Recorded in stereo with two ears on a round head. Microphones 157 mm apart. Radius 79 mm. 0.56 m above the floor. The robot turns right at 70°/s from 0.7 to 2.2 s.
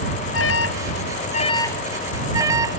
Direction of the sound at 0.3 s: 85° left.